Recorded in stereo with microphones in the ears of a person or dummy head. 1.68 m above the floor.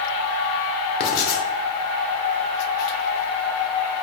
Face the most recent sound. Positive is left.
turn(degrees=50)  # may be behind; listen again after turning